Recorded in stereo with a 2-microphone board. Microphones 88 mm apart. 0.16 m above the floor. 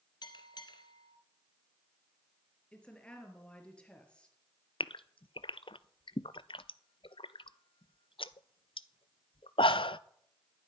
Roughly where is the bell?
Left.